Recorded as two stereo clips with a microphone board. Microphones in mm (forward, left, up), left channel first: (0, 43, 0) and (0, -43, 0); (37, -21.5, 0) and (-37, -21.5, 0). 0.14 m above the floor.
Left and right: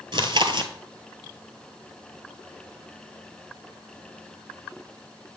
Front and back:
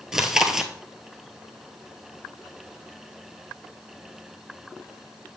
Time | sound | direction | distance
0.1 | chewing | 95° right | 0.9 m